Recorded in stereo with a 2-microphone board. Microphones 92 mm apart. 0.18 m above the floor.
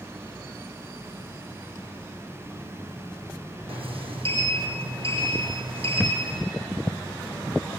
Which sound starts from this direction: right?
A sliding door, at 3.7 s.